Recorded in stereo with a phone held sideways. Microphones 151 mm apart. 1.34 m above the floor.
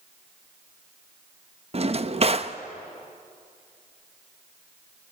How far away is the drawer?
About 0.9 m.